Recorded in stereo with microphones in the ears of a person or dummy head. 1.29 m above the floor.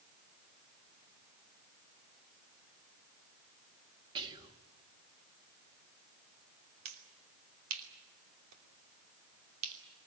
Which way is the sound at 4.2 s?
25° right (ahead or behind).